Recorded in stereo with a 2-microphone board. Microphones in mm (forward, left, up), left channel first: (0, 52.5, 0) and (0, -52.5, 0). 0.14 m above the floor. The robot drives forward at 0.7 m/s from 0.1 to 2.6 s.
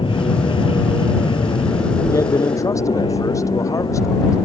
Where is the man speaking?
30° left (ahead or behind).